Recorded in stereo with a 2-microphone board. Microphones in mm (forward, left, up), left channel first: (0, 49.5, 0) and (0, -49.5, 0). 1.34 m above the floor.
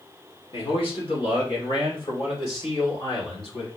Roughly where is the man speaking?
Left.